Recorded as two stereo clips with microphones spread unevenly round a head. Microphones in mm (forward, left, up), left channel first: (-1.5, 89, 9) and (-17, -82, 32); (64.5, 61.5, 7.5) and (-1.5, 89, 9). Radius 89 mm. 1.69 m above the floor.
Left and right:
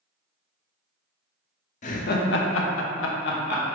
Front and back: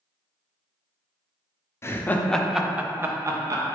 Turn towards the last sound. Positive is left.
turn(degrees=120)